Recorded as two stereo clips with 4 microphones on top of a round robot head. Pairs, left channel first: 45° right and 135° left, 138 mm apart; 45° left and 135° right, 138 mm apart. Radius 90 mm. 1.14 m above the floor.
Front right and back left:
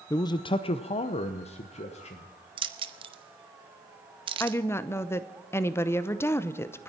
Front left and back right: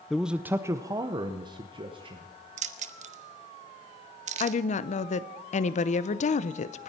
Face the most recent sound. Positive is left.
turn(degrees=25)